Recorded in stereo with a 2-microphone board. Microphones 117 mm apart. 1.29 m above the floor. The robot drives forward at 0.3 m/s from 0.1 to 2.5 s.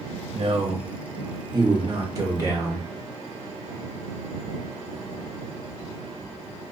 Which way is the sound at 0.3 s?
55° right (ahead or behind).